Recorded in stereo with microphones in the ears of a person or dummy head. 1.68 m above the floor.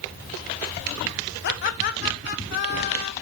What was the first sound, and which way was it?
Laughter, 55° left (ahead or behind).